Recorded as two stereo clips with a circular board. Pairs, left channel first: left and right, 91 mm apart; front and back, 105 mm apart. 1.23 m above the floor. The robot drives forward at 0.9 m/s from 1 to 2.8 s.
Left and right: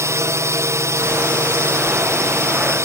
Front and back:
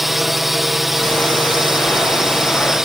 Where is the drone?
95° right.